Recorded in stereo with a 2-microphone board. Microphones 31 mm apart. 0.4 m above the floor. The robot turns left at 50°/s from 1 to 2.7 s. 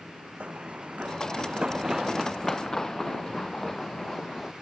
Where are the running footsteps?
40° right (ahead or behind); by 4.5 s 10° left (ahead or behind).